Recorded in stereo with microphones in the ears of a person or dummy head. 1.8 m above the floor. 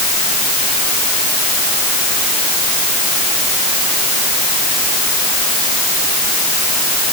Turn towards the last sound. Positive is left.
No sound to turn to.